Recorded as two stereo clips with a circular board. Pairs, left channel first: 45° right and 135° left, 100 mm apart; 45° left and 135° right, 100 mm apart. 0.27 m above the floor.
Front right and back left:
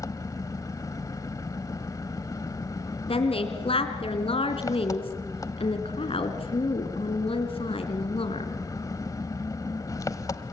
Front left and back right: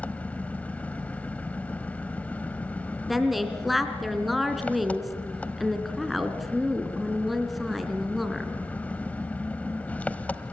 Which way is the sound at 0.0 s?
20° right.